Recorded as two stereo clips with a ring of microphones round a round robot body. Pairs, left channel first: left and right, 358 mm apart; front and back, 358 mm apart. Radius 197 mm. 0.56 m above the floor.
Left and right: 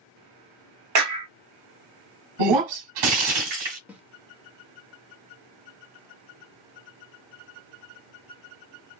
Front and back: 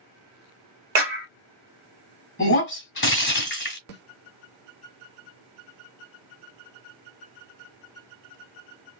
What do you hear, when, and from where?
0.9 s a clap: 125° right, 2 m
2.4 s breaking glass: 60° right, 1.8 m
3.9 s a snare drum: 10° right, 1.3 m